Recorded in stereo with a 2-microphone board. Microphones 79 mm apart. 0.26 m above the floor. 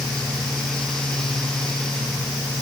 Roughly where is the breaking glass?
I don't hear breaking glass.